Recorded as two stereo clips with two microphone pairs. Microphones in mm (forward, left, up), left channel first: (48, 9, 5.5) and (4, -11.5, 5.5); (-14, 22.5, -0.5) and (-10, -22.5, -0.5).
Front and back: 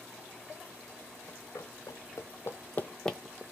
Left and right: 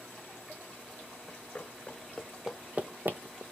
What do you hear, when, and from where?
1.3 s running footsteps: 40° left, 1.0 m; by 3.4 s 70° right, 0.6 m